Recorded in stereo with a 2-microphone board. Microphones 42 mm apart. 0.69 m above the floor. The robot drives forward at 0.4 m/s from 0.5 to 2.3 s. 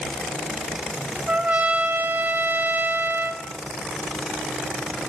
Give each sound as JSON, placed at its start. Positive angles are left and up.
{"t": 1.3, "sound": "a trumpet", "side_deg": -30, "distance_m": 0.8}